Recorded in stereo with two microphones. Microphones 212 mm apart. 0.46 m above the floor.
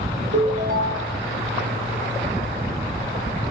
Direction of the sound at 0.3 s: 40° right (ahead or behind).